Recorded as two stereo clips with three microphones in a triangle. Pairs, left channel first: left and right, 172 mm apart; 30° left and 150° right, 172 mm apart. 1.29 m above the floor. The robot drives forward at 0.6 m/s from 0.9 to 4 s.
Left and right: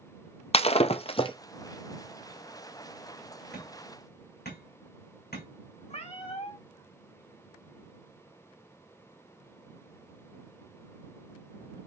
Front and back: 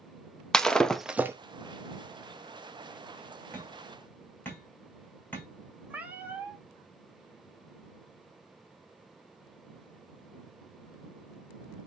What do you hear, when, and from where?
0.5 s breaking glass: 115° left, 0.6 m; by 1.4 s 140° left, 0.7 m
3.5 s hammering: 105° left, 5 m; by 5.5 s 110° left, 5 m
5.9 s a cat meowing: 130° left, 1.3 m